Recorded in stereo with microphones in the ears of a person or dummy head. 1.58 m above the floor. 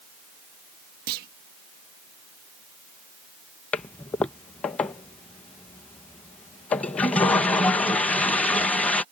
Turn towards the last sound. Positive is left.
turn(degrees=10)  # may be behind; listen again after turning